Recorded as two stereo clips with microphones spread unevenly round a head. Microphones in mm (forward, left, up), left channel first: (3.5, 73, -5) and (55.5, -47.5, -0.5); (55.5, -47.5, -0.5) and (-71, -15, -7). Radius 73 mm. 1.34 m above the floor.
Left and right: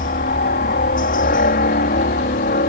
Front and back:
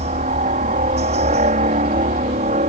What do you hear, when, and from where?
0.0 s a helicopter: 125° left